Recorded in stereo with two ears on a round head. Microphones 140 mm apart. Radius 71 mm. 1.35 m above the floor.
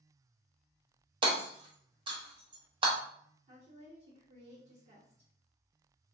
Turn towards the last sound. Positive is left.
turn(degrees=-40)  # may be behind; listen again after turning